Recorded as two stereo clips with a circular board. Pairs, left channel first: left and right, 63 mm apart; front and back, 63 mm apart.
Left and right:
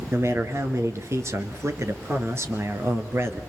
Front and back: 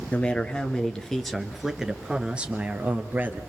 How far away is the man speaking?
About 1.9 m.